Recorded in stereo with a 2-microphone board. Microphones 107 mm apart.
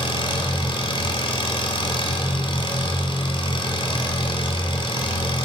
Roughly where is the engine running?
Left.